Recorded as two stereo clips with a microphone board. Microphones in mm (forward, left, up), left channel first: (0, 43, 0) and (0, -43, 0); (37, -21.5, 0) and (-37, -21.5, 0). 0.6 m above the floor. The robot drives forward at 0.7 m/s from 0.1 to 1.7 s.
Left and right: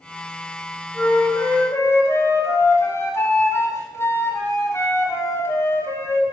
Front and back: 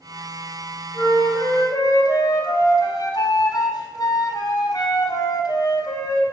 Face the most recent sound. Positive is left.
turn(degrees=25)